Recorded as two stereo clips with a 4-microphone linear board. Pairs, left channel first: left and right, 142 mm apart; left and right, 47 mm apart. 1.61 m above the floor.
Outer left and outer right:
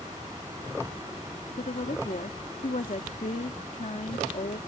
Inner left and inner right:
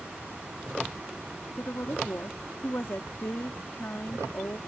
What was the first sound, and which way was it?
A woman speaking, 60° left (ahead or behind).